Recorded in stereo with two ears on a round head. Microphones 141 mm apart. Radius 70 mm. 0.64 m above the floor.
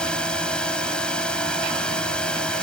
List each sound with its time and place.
0.0 s a drone: 5° left (ahead or behind)